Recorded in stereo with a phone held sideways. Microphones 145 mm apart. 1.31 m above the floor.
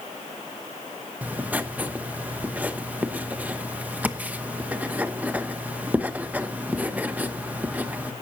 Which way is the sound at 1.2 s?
10° right (ahead or behind).